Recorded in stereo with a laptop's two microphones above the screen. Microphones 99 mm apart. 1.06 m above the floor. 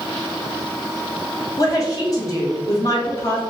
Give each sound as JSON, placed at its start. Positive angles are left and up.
{"t": 1.6, "sound": "a woman speaking", "side_deg": 35, "distance_m": 1.4}